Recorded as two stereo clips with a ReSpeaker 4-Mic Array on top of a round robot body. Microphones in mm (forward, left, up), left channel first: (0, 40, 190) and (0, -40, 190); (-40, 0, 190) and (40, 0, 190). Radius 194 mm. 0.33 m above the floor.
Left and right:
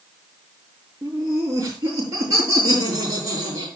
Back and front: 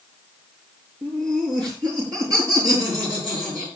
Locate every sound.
1.0 s laughter: 35° right, 7.5 m; by 3.7 s 45° right, 9 m